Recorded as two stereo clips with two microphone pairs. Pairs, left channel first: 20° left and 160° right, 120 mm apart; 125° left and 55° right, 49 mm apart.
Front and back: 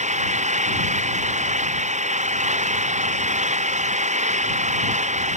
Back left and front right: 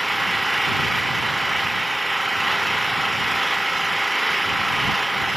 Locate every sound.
0.0 s an engine running: 145° right